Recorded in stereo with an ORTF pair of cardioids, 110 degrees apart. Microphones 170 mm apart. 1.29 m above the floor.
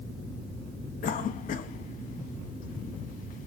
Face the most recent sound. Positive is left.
turn(degrees=55)